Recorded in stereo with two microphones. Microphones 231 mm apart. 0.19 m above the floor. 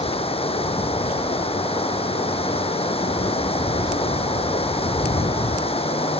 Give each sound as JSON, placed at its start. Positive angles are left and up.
{"t": 0.0, "sound": "running water", "side_deg": 25}